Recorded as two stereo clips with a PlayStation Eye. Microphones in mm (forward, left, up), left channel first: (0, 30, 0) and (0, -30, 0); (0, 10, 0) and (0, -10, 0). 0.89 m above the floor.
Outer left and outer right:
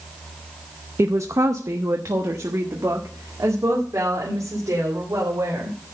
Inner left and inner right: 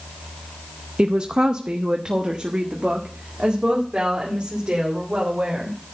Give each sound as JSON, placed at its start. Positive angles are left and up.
{"t": 1.0, "sound": "a woman speaking", "side_deg": -50, "distance_m": 0.5}